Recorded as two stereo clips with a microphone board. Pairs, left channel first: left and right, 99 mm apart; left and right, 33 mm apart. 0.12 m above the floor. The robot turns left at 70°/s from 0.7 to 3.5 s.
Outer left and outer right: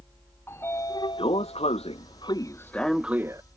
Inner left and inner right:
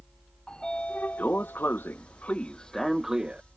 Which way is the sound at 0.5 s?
155° left.